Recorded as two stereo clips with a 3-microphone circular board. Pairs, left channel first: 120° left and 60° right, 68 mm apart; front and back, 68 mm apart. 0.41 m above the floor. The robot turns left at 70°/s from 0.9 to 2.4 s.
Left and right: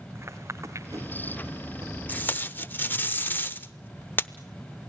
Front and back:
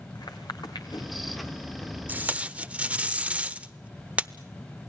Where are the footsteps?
10° right, 2 m; by 1.9 s 90° right, 3 m.